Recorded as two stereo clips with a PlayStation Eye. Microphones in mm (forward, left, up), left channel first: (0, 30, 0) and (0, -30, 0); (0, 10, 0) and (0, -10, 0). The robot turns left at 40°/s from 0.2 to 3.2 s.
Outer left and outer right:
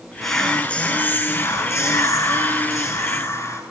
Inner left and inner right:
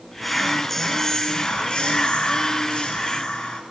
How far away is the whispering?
About 2 m.